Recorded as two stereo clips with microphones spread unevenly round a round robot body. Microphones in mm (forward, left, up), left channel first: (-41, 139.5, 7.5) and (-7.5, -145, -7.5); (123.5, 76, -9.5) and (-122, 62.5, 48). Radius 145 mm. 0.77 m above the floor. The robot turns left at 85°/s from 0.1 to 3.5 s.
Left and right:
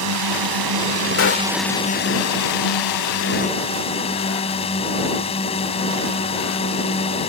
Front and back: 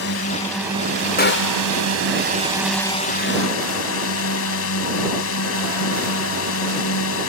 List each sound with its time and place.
0.0 s a drone: 45° right; by 7.3 s 25° left
1.2 s a gunshot: 50° left; by 1.7 s 10° left